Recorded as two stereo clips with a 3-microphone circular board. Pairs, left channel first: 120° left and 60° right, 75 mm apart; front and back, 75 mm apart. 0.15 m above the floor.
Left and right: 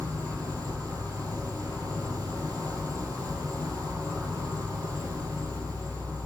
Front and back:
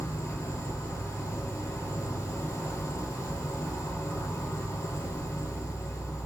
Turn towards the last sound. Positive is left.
turn(degrees=10)